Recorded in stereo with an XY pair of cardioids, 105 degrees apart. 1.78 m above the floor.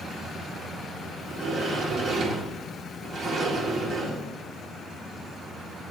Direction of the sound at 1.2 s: 60° right.